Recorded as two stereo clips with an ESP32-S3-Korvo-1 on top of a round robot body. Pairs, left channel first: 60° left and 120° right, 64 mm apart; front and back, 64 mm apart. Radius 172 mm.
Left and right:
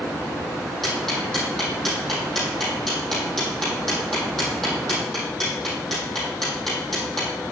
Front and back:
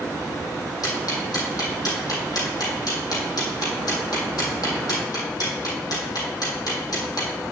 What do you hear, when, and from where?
0.8 s ticking: 25° right, 4.5 m